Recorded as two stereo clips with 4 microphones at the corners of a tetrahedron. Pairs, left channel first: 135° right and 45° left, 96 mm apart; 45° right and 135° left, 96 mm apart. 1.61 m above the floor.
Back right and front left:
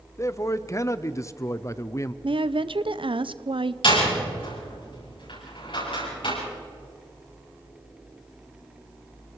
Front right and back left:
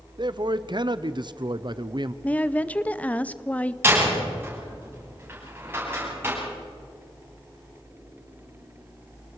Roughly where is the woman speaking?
Ahead left.